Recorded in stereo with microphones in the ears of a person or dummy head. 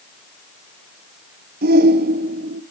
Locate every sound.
1.6 s a shout: 45° right (ahead or behind), 0.8 m